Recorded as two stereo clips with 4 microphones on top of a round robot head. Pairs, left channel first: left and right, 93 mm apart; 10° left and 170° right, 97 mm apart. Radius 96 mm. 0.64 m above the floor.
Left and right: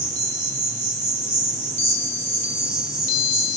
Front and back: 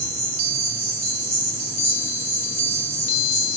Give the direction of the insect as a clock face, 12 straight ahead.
5 o'clock.